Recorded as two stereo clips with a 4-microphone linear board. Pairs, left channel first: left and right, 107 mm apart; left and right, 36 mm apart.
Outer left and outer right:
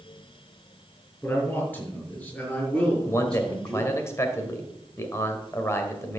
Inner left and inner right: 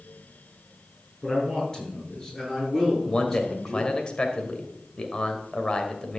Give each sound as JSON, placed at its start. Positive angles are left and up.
{"t": 1.2, "sound": "a man speaking", "side_deg": 20, "distance_m": 6.5}
{"t": 3.0, "sound": "a man speaking", "side_deg": 25, "distance_m": 2.0}